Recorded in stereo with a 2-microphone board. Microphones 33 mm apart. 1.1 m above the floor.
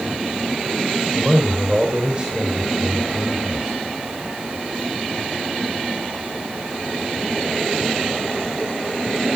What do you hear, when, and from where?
1.1 s a man speaking: 15° right (ahead or behind), 3.5 m